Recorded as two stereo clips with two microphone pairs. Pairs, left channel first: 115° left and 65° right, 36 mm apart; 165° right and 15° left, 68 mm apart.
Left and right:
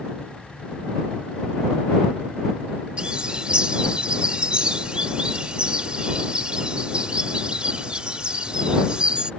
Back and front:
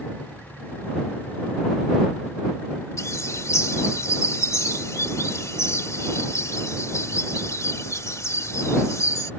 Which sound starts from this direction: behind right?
A bird, at 3.0 s.